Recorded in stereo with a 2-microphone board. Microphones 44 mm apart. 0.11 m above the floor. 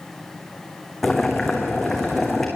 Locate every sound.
1.0 s boiling: 5° left (ahead or behind), 4.5 m